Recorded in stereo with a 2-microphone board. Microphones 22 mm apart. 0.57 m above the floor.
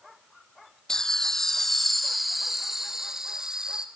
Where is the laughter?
25° left (ahead or behind), 1.2 m; by 3.9 s 40° right (ahead or behind), 1.6 m.